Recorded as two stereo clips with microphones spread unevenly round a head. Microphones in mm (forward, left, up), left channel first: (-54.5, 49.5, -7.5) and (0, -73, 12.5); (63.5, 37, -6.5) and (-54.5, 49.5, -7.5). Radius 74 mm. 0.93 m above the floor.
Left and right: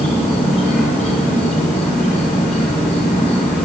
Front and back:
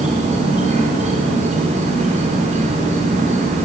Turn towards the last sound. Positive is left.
turn(degrees=155)